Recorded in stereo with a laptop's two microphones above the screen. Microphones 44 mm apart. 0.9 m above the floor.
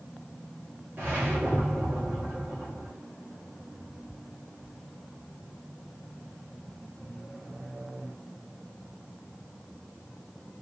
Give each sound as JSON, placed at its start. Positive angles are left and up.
{"t": 1.0, "sound": "a whoosh", "side_deg": -45, "distance_m": 1.5}